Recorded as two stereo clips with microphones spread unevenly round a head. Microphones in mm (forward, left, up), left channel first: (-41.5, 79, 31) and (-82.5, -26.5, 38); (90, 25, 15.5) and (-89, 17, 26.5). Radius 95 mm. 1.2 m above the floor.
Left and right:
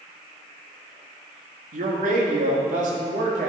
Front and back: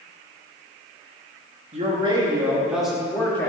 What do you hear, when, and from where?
1.7 s a man speaking: 120° right, 1.7 m; by 3.5 s 75° right, 2 m